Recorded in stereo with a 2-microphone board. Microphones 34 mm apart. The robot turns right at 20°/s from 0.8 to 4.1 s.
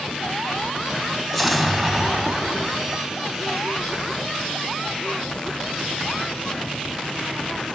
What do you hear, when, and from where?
1.3 s an explosion: 5° left (ahead or behind), 1.6 m; by 3.4 s 10° right (ahead or behind), 1.6 m